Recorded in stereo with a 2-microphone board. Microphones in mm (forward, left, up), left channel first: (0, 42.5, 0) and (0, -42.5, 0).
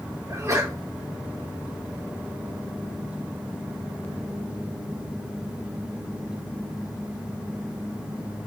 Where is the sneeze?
40° right (ahead or behind), 2 m.